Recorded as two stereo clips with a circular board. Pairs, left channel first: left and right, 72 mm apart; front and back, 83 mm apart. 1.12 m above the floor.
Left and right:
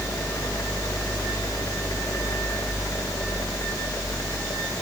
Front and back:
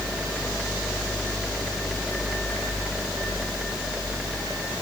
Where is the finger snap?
No finger snap in this recording.